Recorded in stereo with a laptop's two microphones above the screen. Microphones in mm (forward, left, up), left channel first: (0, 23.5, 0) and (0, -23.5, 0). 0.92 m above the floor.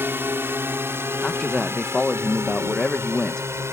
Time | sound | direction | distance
0.0 | a drone | 55° right (ahead or behind) | ?
1.2 | a man speaking | 15° left (ahead or behind) | ?